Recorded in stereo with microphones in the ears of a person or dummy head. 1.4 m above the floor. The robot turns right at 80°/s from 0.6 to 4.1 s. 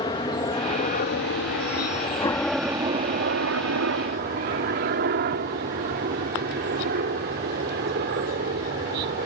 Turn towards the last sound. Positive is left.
turn(degrees=-55)  # may be behind; listen again after turning